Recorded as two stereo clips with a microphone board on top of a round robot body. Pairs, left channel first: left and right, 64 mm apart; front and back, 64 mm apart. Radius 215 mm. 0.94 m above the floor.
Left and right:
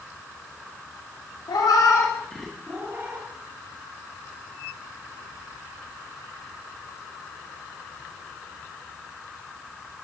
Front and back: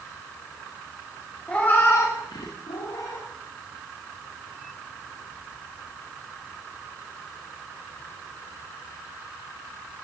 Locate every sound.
1.5 s a cat meowing: 75° left, 1.1 m; by 3.3 s 40° right, 1.4 m